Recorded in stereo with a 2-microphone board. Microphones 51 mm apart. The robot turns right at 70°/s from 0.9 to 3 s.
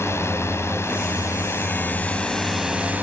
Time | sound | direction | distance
0.0 | a drone | 65° left | ?